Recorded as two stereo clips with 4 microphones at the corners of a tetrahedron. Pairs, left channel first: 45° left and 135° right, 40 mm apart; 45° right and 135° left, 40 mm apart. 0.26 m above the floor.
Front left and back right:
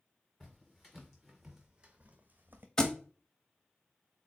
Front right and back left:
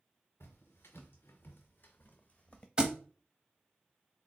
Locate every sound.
0.4 s footsteps: 30° right, 1.2 m; by 2.7 s 110° right, 0.7 m
2.8 s a thud: 100° left, 0.6 m